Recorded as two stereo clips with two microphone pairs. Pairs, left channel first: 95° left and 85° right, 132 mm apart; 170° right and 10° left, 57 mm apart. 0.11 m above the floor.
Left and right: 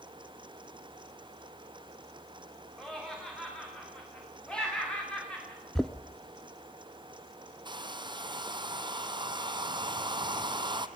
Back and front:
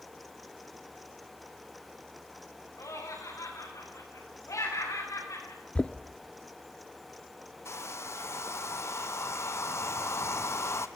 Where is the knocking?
175° left, 0.8 m.